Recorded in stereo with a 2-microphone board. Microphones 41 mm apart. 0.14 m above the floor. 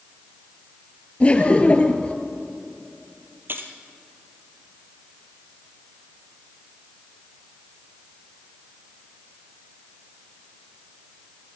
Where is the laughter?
35° left (ahead or behind), 2 m.